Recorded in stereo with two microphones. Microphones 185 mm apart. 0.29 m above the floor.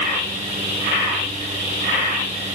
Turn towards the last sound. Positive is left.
No sound to turn to.